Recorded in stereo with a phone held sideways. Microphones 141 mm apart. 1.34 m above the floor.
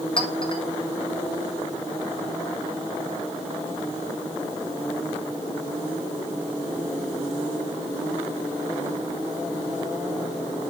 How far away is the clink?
About 1.3 m.